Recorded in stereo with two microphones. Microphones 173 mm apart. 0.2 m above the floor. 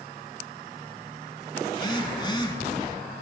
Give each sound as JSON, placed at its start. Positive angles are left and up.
{"t": 1.7, "sound": "a phone buzzing", "side_deg": 25, "distance_m": 1.6}